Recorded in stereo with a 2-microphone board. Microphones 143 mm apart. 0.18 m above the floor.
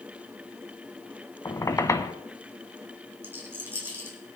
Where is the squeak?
20° left (ahead or behind), 1.2 m.